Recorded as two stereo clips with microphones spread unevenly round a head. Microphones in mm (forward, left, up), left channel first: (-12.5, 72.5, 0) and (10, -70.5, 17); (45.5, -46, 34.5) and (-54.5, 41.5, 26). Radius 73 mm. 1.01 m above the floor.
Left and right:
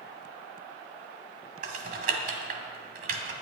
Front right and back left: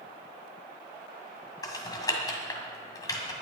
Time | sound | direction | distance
1.6 | typing on a keyboard | 100° right | 1.7 m